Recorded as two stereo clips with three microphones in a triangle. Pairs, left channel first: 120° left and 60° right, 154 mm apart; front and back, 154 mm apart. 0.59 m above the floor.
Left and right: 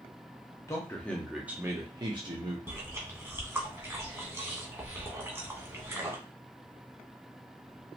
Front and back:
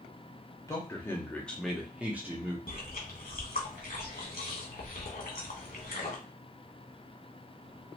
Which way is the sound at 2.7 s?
15° left.